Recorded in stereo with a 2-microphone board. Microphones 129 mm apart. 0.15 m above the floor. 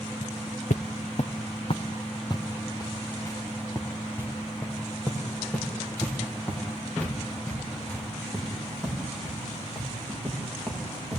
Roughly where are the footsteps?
Left.